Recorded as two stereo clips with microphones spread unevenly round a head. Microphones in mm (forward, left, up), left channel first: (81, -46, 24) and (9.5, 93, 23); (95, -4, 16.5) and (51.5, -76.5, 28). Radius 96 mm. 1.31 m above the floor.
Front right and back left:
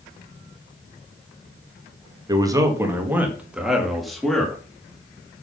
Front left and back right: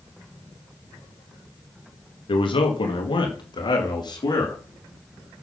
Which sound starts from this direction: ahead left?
A man speaking, at 2.3 s.